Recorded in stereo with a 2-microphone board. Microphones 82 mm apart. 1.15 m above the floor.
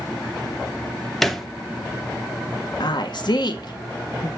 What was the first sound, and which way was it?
A thud, centre (ahead or behind).